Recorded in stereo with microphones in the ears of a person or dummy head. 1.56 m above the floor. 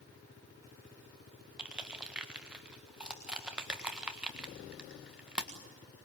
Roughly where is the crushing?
Centre.